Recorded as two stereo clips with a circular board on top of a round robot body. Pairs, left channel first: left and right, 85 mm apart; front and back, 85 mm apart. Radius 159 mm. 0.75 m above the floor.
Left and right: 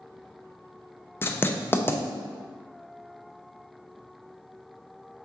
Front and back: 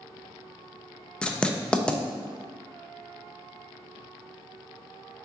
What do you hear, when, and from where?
1.2 s writing: 65° left, 0.6 m